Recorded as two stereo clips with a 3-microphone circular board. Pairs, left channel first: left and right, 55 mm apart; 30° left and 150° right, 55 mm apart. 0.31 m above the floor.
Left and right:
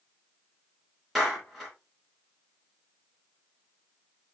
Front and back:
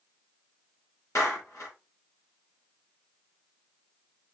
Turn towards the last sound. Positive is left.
turn(degrees=5)